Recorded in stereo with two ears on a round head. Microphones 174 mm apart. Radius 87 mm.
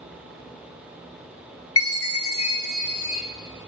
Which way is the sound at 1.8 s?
80° left.